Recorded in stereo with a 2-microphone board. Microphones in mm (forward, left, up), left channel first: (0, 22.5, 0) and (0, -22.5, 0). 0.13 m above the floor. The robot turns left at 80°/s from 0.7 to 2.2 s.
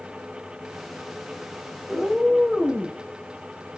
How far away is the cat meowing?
About 1.3 m.